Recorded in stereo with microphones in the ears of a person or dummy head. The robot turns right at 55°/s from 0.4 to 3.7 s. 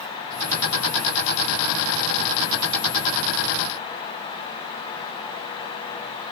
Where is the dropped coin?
No dropped coin in this recording.